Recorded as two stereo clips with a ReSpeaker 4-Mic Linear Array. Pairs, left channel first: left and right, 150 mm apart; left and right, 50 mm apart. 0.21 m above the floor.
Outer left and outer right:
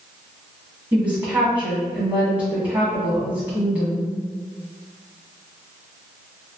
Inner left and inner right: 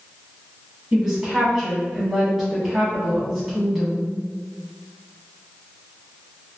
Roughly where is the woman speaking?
Centre.